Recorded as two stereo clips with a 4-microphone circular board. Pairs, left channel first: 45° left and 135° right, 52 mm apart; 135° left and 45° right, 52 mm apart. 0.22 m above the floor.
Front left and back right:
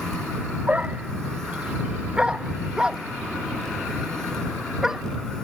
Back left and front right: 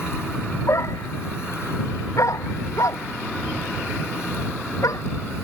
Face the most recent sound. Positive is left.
turn(degrees=140)